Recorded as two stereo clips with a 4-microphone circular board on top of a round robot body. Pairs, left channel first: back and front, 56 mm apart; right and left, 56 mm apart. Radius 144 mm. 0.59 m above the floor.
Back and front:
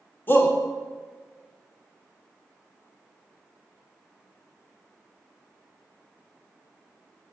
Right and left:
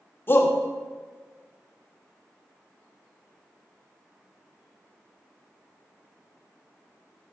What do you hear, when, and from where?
0.3 s a shout: 135° right, 2.5 m